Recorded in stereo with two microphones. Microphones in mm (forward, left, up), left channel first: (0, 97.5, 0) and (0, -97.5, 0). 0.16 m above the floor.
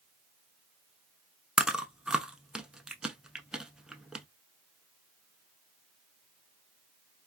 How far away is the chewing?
About 0.5 m.